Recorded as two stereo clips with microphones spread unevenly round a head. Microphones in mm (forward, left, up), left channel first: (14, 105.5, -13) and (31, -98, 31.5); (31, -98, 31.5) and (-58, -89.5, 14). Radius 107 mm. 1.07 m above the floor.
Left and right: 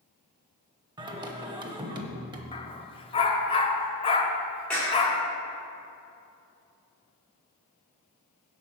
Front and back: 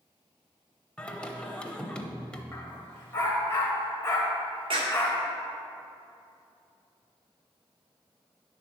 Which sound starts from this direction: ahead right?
Singing, at 1.0 s.